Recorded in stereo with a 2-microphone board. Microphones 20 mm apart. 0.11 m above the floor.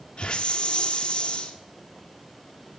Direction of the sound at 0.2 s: 60° left (ahead or behind).